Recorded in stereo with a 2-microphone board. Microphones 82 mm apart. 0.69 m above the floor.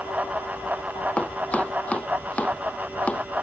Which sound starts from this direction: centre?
Chopping, at 1.2 s.